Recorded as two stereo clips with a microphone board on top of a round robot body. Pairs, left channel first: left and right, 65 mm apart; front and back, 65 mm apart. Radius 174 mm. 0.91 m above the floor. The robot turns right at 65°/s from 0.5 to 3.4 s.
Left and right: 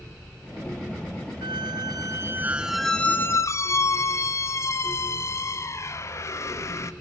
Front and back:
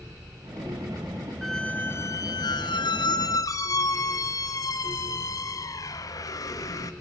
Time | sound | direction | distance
1.4 | a squeak | 90° right | 0.8 m